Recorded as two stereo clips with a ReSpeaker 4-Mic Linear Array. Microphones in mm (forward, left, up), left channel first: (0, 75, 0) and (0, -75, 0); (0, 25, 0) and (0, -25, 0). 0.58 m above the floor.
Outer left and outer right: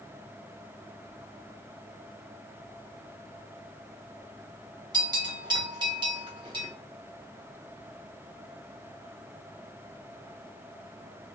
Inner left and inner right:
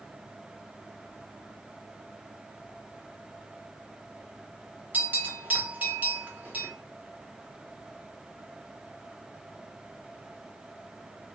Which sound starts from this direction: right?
A bell, at 4.9 s.